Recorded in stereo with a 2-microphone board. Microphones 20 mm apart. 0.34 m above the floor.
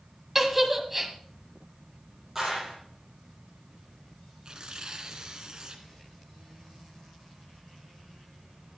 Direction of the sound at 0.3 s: 10° right (ahead or behind).